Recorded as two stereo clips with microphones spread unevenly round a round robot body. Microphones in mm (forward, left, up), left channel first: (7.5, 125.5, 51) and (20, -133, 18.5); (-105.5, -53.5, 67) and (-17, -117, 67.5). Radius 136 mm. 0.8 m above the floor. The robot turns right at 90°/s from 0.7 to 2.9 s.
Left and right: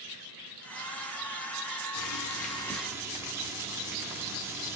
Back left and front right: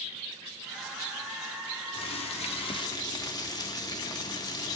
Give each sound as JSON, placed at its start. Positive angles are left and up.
{"t": 1.9, "sound": "boiling", "azimuth_deg": 110, "distance_m": 0.9}